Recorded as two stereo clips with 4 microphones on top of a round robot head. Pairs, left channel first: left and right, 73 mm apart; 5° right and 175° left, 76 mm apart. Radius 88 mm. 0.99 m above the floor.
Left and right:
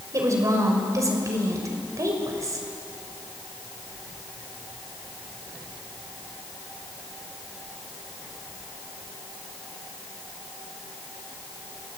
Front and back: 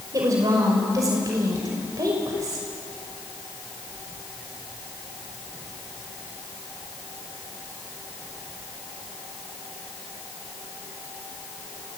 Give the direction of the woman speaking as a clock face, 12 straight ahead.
4 o'clock.